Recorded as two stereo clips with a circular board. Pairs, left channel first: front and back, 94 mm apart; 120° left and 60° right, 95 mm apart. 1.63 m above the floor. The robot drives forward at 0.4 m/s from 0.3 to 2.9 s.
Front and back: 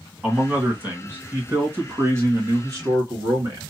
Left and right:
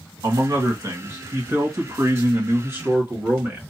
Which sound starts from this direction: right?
A man speaking, at 0.2 s.